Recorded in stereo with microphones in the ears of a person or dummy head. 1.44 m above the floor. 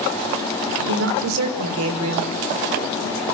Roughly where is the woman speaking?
Right.